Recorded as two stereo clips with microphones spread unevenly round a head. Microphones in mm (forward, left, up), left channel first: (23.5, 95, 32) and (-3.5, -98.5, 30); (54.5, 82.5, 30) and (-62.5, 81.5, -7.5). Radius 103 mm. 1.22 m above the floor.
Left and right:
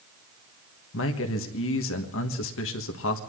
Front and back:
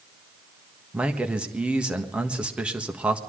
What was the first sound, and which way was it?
A man speaking, 100° left.